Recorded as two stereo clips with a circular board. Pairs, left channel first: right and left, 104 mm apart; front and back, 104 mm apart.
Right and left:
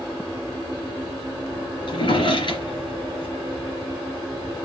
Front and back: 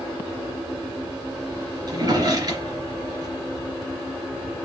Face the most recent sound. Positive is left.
turn(degrees=-130)